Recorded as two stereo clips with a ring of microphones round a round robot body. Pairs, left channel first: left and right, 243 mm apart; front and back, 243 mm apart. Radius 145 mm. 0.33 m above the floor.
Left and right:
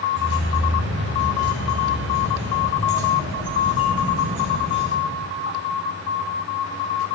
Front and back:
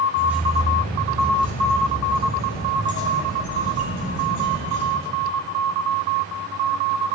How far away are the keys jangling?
About 1.8 m.